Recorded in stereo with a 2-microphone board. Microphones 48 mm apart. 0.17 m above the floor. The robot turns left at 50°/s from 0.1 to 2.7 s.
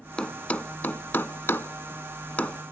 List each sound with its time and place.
0.2 s a thud: 20° left (ahead or behind), 0.6 m; by 2.6 s 25° left (ahead or behind), 0.6 m